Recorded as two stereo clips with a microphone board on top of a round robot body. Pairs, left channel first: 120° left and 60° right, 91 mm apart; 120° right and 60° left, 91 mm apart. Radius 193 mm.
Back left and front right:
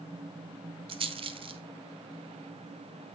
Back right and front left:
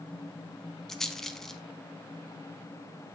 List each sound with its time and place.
0.9 s a rattle: 35° right, 0.5 m